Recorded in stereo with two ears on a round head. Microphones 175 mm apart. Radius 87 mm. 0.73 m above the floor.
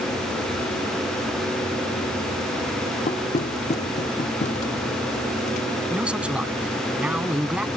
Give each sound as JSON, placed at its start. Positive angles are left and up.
{"t": 3.1, "sound": "knocking", "side_deg": 35}
{"t": 5.9, "sound": "a man speaking", "side_deg": -5}